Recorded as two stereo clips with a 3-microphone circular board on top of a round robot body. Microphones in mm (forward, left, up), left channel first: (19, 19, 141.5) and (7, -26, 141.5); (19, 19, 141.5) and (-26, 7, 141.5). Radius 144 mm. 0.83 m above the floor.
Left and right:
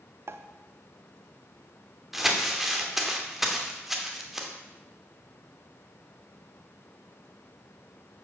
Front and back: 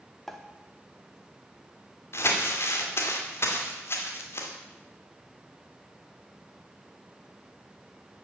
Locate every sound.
0.3 s a pop: 70° right, 0.8 m
2.1 s crumpling: 20° right, 2.5 m